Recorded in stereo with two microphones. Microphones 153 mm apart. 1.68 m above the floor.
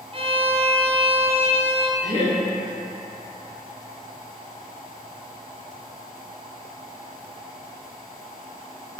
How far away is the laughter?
About 1.2 m.